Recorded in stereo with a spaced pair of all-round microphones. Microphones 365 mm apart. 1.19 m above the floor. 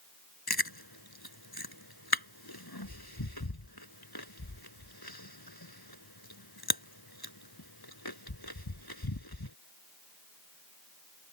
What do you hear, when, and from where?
0.5 s chewing: 85° left